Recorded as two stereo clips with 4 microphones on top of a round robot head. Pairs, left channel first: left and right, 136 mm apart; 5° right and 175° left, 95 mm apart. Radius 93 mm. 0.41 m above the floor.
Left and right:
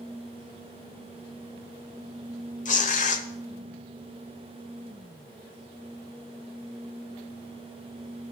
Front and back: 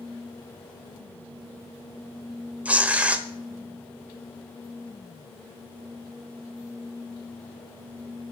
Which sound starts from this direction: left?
Tearing paper, at 2.6 s.